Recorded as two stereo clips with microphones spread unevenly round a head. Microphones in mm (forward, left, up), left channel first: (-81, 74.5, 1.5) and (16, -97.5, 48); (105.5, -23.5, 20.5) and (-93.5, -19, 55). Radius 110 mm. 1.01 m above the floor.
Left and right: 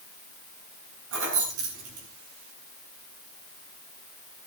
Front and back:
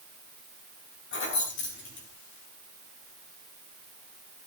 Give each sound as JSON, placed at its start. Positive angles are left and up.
{"t": 1.1, "sound": "keys jangling", "azimuth_deg": -30, "distance_m": 6.5}